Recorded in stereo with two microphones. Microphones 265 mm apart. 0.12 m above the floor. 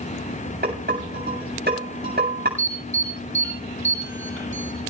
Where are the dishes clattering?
35° right (ahead or behind), 8 m.